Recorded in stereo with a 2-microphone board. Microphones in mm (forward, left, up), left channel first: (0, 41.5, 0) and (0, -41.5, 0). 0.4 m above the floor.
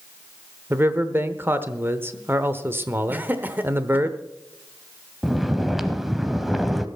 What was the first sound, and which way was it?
A man speaking, 25° right (ahead or behind).